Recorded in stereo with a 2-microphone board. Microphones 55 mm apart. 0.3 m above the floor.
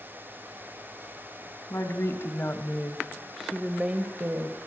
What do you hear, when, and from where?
1.7 s a woman speaking: 55° left (ahead or behind), 2.5 m; by 4.6 s 50° right (ahead or behind), 1.9 m